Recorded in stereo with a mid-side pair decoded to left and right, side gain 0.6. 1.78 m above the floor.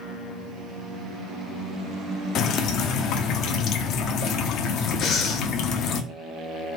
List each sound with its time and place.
2.4 s dripping: 60° left, 0.5 m
5.0 s breathing: 55° left, 0.7 m